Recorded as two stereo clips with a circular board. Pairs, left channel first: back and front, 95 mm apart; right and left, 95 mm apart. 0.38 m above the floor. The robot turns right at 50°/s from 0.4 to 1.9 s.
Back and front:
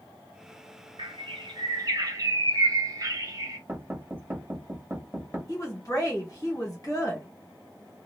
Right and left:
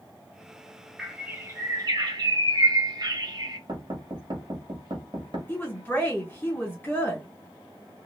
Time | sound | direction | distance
1.0 | a bird | 5° left | 0.7 m
3.7 | knocking | 65° left | 1.0 m
5.5 | a woman speaking | 150° right | 1.5 m